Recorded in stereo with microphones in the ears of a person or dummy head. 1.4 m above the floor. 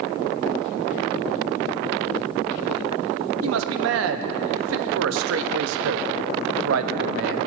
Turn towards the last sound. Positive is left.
turn(degrees=-70)  # may be behind; listen again after turning